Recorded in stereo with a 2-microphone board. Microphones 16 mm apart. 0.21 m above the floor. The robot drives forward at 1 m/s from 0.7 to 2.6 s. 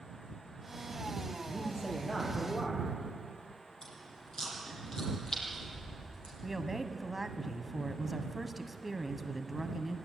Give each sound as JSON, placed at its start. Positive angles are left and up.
{"t": 1.4, "sound": "a man speaking", "side_deg": 20, "distance_m": 7.0}
{"t": 3.8, "sound": "chewing", "side_deg": 30, "distance_m": 7.5}
{"t": 6.4, "sound": "a woman speaking", "side_deg": -15, "distance_m": 1.1}